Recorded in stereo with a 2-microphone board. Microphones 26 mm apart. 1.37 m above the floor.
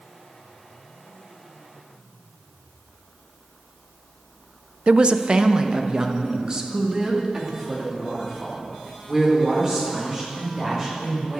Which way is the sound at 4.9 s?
50° right (ahead or behind).